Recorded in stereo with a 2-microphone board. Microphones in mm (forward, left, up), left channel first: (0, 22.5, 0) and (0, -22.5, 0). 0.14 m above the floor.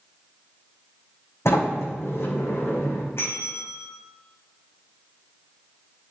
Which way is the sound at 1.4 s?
75° left (ahead or behind).